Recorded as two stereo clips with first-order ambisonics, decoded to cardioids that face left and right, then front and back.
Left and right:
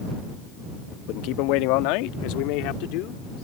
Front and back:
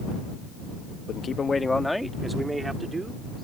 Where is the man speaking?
60° left; by 3.4 s 105° left.